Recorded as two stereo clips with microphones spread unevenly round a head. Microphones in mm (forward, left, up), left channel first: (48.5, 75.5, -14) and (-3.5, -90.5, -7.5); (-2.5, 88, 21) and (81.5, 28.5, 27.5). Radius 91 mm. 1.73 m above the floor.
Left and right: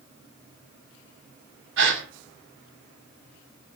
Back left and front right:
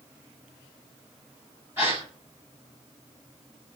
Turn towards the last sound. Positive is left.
turn(degrees=-110)